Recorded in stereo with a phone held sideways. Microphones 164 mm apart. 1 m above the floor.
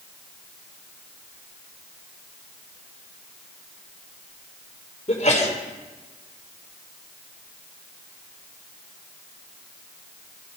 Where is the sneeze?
50° left (ahead or behind), 3.5 m.